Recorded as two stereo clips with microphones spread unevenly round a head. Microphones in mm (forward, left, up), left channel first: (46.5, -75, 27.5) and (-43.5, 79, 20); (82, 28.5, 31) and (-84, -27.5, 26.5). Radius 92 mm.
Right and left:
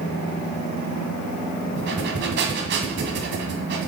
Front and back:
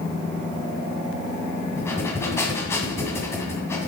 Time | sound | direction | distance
1.8 | breathing | 95° left | 1.9 m